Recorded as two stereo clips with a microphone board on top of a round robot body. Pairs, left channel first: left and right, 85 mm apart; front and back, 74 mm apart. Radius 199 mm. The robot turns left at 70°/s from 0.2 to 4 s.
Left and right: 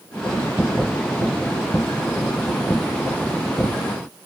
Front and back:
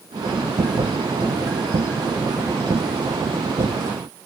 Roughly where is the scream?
No scream in this recording.